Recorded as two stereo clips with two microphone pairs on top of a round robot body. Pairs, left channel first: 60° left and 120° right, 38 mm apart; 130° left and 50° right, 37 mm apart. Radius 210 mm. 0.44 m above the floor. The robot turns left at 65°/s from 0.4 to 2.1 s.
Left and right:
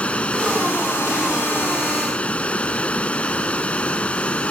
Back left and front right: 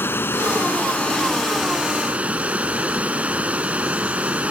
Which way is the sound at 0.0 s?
115° left.